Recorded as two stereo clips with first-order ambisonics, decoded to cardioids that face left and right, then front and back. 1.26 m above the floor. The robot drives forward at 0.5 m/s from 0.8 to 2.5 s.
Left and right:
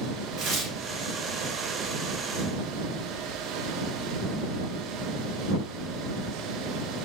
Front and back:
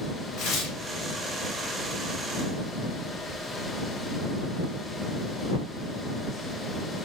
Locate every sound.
0.4 s tearing paper: 35° right, 1.3 m